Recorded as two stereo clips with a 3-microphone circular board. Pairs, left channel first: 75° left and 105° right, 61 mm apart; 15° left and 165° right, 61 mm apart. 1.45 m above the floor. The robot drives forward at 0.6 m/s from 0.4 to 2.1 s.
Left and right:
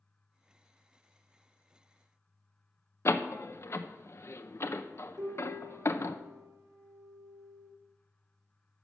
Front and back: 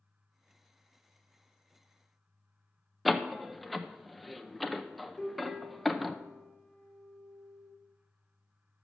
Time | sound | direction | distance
3.0 | a door slam | 105° left | 0.7 m
5.2 | a piano | 85° right | 3 m